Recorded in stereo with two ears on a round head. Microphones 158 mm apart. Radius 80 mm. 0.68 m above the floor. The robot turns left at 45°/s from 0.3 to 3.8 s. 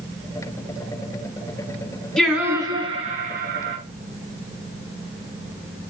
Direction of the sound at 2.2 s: 5° left.